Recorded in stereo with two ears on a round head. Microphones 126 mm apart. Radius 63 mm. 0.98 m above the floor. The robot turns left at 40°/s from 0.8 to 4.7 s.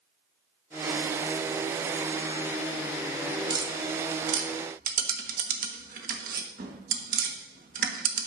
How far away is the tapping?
About 1.4 m.